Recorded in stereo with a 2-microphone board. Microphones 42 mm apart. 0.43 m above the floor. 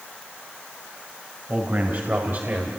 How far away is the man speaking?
About 2.5 m.